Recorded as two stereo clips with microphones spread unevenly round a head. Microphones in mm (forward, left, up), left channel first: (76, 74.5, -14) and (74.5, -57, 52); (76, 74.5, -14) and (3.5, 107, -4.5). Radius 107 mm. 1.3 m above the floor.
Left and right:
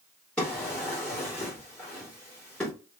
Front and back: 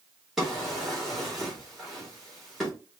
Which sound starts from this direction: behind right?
A drawer, at 0.4 s.